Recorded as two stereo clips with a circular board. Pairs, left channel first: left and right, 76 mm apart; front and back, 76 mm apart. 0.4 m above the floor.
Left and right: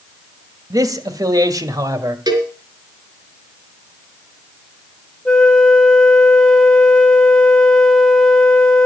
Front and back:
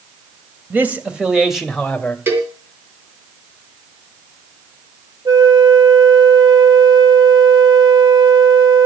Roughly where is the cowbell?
Behind right.